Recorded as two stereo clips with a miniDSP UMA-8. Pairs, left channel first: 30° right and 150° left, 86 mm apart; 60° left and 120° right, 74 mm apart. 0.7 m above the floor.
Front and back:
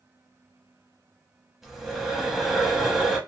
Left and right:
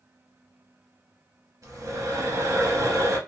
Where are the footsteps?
I don't hear footsteps.